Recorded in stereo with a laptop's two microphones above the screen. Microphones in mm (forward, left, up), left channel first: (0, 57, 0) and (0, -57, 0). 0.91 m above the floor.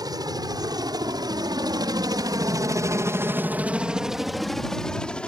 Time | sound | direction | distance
0.0 | a helicopter | 35° right (ahead or behind) | ?